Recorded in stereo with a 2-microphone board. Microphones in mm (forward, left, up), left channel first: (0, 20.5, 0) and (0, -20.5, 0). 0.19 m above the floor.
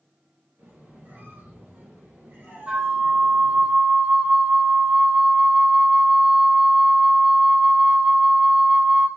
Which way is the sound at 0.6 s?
70° right (ahead or behind).